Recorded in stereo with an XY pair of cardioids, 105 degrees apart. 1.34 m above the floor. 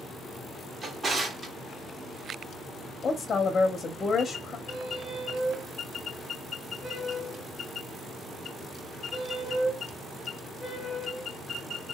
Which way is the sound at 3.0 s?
40° left.